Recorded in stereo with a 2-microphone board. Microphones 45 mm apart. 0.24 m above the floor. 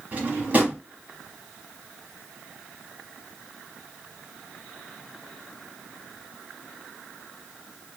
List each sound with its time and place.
0.1 s a drawer: 35° right (ahead or behind), 1.0 m